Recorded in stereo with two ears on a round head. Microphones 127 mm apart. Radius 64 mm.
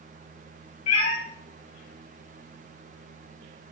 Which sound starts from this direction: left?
A cat meowing, at 0.9 s.